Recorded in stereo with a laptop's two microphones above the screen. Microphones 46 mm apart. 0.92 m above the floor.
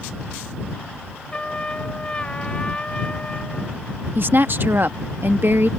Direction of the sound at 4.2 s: 55° right (ahead or behind).